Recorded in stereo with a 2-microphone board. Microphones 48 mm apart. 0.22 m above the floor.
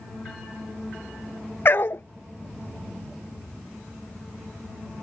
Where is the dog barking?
50° left (ahead or behind).